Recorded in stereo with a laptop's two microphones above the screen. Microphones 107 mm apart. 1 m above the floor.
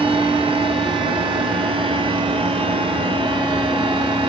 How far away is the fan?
About 0.8 m.